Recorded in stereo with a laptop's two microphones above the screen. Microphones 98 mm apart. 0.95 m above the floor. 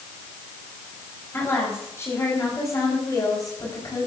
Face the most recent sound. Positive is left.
turn(degrees=40)  # may be behind; listen again after turning